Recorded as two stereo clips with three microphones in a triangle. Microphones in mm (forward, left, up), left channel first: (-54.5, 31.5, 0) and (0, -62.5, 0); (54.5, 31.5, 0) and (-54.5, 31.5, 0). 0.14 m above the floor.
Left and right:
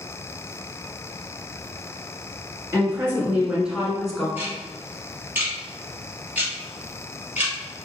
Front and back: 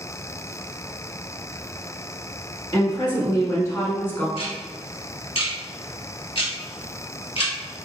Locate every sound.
2.7 s a woman speaking: 5° right, 1.8 m; by 4.3 s 40° left, 1.3 m
4.4 s ticking: 10° left, 1.6 m